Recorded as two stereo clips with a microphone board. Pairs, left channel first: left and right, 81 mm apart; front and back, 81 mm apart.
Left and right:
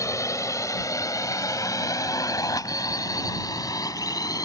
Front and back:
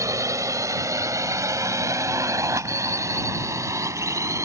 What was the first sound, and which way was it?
A drone, 135° left.